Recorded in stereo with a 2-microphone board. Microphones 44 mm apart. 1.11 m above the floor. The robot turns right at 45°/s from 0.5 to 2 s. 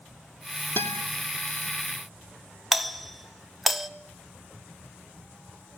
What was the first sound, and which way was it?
A guitar, 55° left (ahead or behind).